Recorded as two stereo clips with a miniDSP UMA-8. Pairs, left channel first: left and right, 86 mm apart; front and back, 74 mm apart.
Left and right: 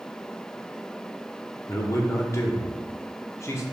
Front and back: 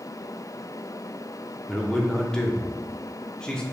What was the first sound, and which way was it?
A man speaking, 75° left.